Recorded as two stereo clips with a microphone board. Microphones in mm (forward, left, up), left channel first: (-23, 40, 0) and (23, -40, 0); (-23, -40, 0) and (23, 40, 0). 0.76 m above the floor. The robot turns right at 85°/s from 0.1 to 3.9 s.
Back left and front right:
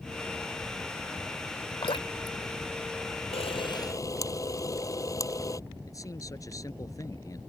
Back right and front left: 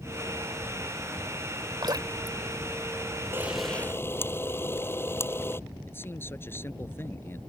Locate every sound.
1.8 s dripping: 95° left; by 2.4 s 140° left
3.3 s a camera shutter: 125° left; by 5.6 s 175° left
5.9 s a man speaking: 175° left